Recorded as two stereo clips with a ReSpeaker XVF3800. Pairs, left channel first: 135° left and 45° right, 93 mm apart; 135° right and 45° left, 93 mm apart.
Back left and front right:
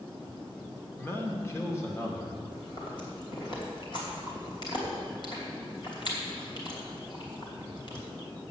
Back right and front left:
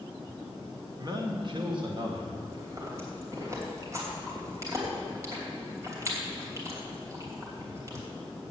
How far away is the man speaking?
About 1.5 m.